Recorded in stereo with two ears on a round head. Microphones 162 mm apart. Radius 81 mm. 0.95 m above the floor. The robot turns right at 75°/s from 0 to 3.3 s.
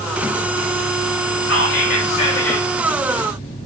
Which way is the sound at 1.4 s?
95° left.